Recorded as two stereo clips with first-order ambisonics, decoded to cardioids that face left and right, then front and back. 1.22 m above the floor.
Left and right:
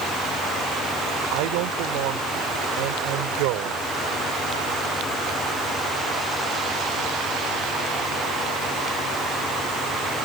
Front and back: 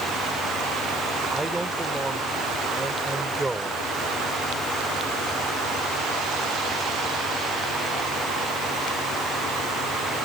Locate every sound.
1.3 s a man speaking: 95° right